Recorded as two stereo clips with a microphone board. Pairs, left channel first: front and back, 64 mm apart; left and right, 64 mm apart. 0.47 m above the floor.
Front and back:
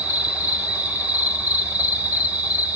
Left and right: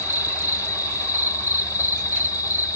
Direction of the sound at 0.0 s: 115° left.